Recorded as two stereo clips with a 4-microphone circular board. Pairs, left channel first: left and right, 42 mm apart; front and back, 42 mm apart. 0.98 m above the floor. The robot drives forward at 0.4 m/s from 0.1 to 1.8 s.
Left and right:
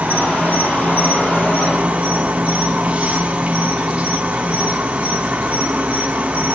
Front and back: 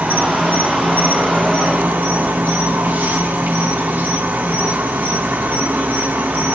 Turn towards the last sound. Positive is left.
turn(degrees=-145)